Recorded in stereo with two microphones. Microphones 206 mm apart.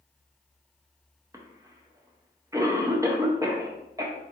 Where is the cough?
15° right (ahead or behind), 0.5 m.